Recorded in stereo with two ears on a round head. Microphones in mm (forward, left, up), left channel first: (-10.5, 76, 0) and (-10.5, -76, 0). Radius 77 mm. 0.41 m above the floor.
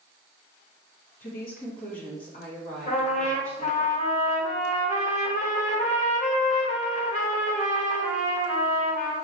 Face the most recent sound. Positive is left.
turn(degrees=40)  # may be behind; listen again after turning